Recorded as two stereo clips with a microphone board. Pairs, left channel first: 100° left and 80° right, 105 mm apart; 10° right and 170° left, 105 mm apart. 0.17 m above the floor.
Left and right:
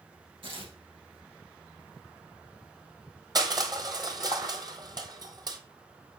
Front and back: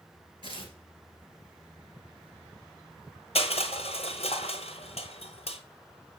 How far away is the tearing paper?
About 3 m.